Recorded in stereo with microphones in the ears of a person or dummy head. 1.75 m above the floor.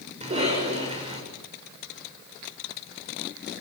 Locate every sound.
0.2 s a cough: 35° right (ahead or behind), 7 m